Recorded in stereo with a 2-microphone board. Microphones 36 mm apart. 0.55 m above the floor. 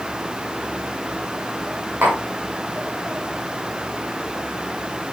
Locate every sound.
2.0 s tapping: 85° right, 9 m